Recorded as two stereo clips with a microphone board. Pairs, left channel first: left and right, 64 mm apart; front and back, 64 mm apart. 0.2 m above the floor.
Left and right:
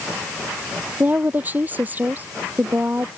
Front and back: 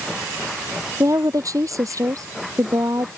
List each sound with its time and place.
1.0 s a woman speaking: 150° right